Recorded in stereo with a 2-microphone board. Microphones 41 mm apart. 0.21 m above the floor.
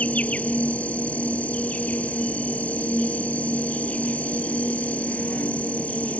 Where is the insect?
35° left (ahead or behind).